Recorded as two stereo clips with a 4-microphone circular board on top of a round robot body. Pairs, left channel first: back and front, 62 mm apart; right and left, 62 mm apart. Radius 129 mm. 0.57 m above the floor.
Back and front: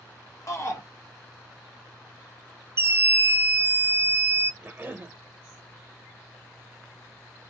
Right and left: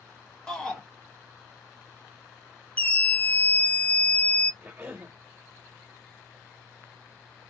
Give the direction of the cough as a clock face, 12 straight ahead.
11 o'clock.